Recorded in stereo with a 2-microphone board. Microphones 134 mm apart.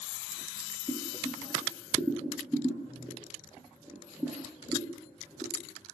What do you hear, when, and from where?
0.9 s boiling: 10° right (ahead or behind), 6.5 m